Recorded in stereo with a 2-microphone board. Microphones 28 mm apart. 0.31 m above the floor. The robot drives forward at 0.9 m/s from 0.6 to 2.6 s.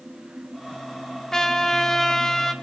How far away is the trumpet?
About 1.3 m.